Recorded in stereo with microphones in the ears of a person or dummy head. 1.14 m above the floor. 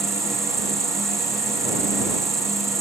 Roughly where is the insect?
Centre.